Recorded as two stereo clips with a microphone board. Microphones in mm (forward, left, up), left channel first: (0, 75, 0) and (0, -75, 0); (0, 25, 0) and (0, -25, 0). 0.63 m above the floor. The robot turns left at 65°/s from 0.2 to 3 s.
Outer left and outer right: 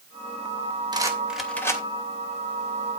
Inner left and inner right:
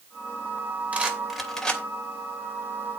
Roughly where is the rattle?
Right.